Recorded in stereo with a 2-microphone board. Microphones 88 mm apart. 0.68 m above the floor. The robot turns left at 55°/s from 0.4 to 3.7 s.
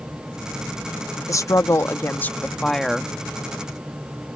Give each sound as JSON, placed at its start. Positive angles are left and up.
{"t": 1.3, "sound": "a woman speaking", "azimuth_deg": 90}